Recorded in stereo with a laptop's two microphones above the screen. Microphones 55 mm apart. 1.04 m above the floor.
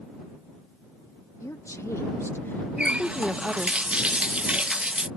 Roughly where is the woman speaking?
Left.